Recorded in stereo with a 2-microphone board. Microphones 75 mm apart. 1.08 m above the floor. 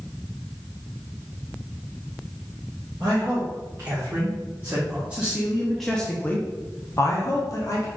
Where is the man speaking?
35° right (ahead or behind), 1.7 m; by 7.9 s 45° left (ahead or behind), 1.0 m.